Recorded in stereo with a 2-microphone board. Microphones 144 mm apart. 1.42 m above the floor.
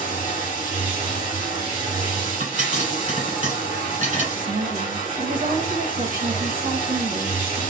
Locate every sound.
0.0 s running water: 65° right (ahead or behind), 1.9 m
2.4 s a pop: 65° right (ahead or behind), 2 m
4.3 s a woman speaking: 70° right (ahead or behind), 1.2 m